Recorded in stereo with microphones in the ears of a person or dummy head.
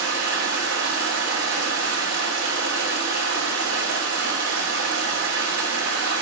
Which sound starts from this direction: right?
Running water, at 0.0 s.